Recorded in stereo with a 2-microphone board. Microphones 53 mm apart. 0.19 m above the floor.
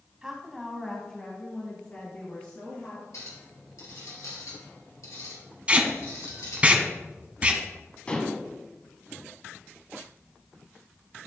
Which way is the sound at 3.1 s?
75° left (ahead or behind).